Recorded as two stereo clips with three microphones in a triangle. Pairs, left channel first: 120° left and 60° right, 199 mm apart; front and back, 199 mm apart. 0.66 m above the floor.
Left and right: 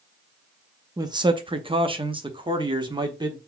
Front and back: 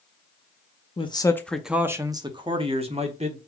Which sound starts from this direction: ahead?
A man speaking, at 1.0 s.